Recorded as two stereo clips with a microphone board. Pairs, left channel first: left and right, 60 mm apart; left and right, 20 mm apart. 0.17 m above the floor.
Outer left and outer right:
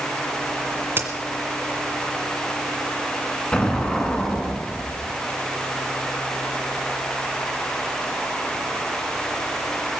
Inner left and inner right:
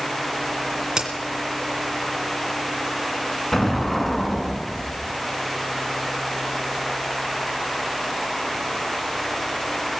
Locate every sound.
1.0 s a crack: 40° right (ahead or behind), 2 m
3.5 s an explosion: 20° left (ahead or behind), 2 m